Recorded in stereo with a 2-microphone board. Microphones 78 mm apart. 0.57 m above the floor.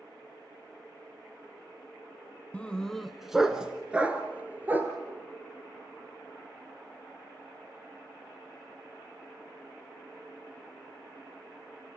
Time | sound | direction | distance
2.5 | a dog barking | 15° left (ahead or behind) | 1.2 m